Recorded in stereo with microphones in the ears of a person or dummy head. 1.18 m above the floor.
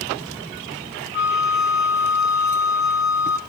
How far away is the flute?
About 1.6 m.